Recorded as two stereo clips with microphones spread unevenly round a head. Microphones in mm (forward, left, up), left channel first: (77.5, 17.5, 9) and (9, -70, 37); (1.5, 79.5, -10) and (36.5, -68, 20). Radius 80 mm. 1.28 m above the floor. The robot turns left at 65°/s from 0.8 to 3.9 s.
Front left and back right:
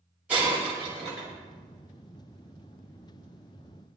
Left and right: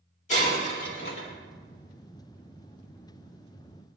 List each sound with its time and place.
0.3 s breaking glass: 155° left, 4.5 m; by 1.3 s 120° left, 4.5 m